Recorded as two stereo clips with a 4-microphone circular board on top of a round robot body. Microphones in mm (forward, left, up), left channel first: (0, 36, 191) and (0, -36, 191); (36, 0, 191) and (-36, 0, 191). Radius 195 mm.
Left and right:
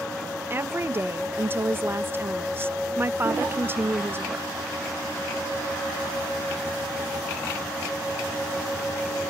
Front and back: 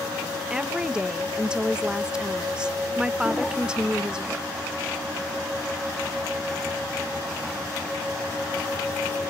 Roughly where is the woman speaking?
Right.